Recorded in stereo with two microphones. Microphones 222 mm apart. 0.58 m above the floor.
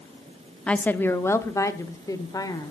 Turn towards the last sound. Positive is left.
turn(degrees=15)  # may be behind; listen again after turning